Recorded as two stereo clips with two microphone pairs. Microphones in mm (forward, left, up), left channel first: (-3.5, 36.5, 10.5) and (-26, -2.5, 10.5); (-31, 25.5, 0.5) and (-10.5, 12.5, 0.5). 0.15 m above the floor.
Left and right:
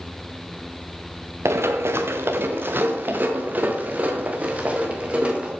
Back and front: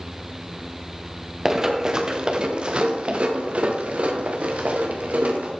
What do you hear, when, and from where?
1.4 s running footsteps: 105° right, 1.5 m; by 5.5 s 60° right, 3 m